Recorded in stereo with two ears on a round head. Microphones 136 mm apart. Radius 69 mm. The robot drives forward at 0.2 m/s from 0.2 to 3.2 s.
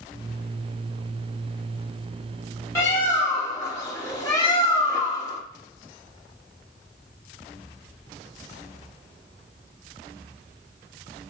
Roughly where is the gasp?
I don't hear a gasp.